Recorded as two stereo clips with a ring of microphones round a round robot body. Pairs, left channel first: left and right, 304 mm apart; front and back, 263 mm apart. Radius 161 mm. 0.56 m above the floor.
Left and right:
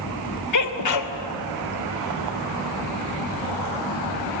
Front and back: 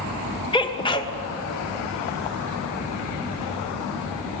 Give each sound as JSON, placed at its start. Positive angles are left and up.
{"t": 0.5, "sound": "a sneeze", "azimuth_deg": 70, "distance_m": 2.5}